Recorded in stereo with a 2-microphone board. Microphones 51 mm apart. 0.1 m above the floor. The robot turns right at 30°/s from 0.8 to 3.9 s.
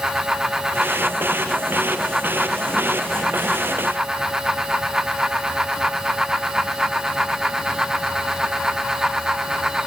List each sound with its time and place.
Only background noise.